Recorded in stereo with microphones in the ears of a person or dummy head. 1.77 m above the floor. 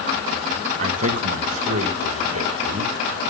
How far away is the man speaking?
About 2 m.